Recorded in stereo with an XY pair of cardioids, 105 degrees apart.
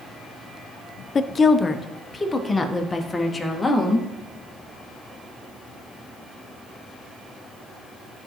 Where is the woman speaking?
40° left, 0.6 m; by 4.1 s 10° left, 2 m.